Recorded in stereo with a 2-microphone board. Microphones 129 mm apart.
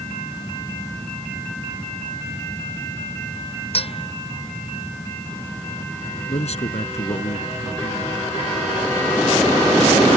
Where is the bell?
50° left (ahead or behind).